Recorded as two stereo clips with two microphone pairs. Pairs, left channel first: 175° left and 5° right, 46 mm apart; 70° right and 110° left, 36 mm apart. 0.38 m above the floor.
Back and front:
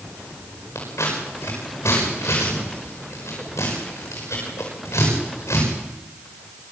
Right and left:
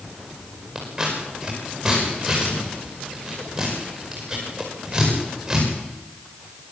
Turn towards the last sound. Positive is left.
turn(degrees=-170)